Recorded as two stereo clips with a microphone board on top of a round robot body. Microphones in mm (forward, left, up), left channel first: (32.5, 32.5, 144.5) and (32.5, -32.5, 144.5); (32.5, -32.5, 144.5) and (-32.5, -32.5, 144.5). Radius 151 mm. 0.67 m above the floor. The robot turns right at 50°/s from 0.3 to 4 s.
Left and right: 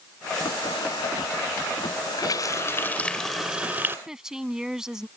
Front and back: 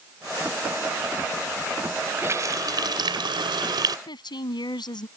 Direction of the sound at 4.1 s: 10° right.